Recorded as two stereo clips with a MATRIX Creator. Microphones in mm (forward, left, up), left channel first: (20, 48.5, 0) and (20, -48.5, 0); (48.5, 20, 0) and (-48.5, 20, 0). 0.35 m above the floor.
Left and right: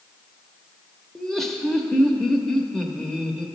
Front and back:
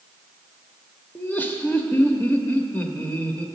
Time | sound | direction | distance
1.1 | laughter | 10° left | 0.8 m